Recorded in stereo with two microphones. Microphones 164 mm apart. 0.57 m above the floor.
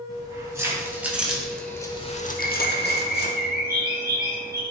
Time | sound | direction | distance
0.1 | keys jangling | 20° right (ahead or behind) | 3 m
2.4 | a bird | 70° right (ahead or behind) | 3.5 m